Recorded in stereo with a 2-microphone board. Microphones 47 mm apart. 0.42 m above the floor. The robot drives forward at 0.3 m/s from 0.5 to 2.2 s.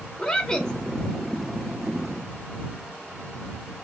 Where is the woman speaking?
15° left (ahead or behind), 0.9 m.